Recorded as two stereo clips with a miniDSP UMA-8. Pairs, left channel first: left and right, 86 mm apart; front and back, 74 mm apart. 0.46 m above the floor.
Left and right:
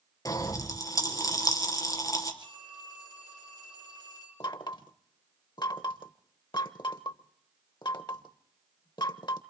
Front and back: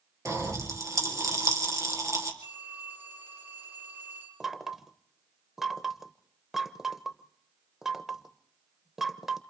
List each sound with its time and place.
0.2 s a pop: 135° left, 3.5 m
2.4 s a phone ringing: 130° right, 7.5 m
4.4 s knocking: 95° left, 0.8 m